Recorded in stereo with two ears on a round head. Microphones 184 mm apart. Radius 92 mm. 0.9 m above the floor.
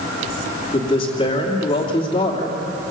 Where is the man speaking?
25° left (ahead or behind), 2.5 m.